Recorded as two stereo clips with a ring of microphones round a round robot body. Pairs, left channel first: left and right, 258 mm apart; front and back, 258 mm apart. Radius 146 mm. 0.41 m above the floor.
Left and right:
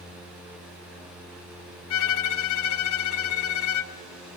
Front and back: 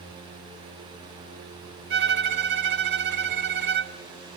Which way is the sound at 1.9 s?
130° left.